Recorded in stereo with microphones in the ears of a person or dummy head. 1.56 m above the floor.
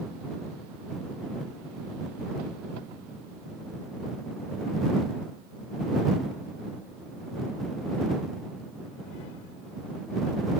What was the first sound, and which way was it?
Only background noise.